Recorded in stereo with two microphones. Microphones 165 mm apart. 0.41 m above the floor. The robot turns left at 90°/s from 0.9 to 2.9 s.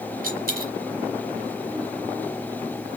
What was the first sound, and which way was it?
A dropped coin, 60° right (ahead or behind).